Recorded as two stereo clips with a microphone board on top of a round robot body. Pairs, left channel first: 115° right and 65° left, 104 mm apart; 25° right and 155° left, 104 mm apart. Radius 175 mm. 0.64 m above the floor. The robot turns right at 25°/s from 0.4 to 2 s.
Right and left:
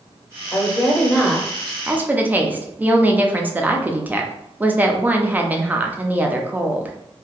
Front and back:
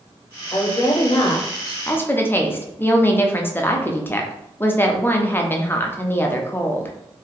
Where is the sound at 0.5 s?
50° right, 1.1 m; by 1.8 s 20° right, 1.1 m.